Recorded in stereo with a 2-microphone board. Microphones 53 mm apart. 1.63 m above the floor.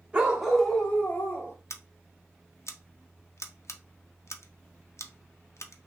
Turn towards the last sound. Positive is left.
turn(degrees=65)  # may be behind; listen again after turning